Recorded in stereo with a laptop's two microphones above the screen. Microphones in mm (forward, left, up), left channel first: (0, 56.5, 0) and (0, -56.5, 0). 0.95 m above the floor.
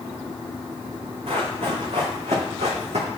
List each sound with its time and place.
1.3 s running footsteps: 70° right (ahead or behind), 5 m; by 3.1 s 75° right (ahead or behind), 4 m